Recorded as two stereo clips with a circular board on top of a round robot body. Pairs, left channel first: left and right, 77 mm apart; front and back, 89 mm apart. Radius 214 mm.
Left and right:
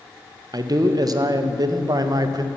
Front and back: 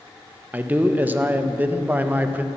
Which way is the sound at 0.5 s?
115° right.